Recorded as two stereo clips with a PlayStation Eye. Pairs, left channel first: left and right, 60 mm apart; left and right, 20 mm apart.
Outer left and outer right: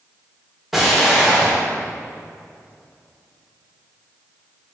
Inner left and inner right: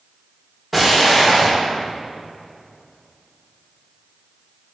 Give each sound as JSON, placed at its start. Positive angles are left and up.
{"t": 0.7, "sound": "an explosion", "side_deg": -5, "distance_m": 1.6}